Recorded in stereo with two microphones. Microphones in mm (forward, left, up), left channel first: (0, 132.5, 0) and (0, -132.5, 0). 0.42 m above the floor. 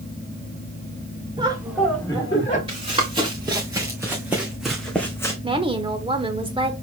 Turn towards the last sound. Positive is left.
turn(degrees=-20)  # may be behind; listen again after turning